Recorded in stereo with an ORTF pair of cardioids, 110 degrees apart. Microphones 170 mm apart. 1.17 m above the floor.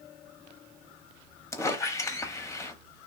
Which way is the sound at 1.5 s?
15° left.